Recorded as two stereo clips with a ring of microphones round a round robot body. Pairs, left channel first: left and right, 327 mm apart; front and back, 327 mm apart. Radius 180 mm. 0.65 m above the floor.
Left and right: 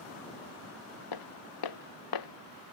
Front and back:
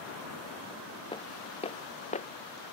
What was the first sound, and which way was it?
Footsteps, 75° left.